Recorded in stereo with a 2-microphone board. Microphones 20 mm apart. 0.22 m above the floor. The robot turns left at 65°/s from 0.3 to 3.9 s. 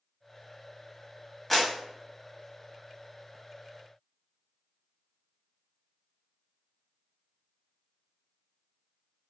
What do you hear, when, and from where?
1.5 s a clap: 10° left (ahead or behind), 0.8 m; by 1.7 s centre (ahead or behind), 0.8 m